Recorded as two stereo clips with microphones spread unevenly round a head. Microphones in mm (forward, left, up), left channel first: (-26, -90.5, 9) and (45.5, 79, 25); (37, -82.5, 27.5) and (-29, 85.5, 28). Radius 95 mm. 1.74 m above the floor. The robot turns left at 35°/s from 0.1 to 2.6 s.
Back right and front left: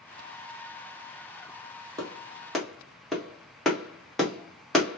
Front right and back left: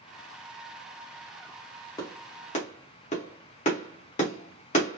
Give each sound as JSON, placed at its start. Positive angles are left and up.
{"t": 2.0, "sound": "a clap", "azimuth_deg": 0, "distance_m": 1.3}